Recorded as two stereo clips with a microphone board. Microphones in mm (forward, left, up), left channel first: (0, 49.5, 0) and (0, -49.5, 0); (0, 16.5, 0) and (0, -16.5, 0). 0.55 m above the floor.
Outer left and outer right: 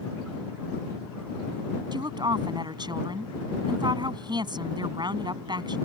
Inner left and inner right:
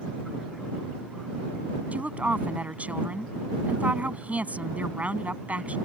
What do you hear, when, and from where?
1.9 s a woman speaking: 45° right (ahead or behind)